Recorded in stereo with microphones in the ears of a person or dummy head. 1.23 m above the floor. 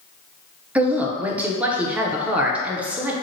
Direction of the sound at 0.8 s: 10° right (ahead or behind).